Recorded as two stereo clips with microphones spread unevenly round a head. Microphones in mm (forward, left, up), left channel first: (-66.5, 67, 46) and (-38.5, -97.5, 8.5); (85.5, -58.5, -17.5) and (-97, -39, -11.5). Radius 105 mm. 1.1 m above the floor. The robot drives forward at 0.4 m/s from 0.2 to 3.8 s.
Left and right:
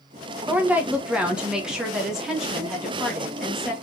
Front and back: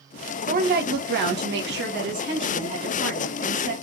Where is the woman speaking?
150° right, 1.0 m; by 3.7 s 170° right, 2 m.